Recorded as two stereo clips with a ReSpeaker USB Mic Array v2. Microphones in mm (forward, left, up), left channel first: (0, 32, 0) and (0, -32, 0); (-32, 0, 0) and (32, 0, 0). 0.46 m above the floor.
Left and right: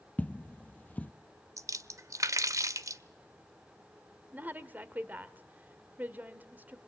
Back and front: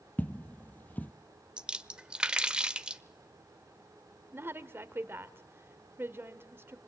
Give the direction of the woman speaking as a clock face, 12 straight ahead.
1 o'clock.